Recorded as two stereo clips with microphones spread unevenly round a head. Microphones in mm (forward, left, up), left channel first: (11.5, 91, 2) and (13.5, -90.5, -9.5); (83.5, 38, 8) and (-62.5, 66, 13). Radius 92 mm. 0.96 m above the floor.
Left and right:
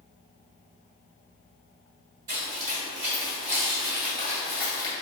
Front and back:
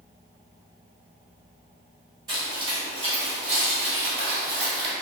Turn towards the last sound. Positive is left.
turn(degrees=150)